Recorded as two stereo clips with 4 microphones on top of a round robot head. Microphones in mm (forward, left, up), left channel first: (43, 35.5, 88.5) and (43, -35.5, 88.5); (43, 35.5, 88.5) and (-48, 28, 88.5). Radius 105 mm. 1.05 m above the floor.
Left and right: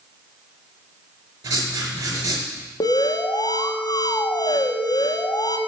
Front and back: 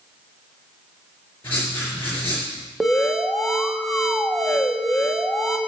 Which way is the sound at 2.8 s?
95° left.